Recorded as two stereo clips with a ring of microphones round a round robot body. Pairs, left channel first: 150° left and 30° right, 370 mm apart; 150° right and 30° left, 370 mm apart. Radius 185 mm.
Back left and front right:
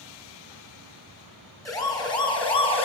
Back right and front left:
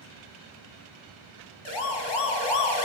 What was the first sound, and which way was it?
A siren, 130° right.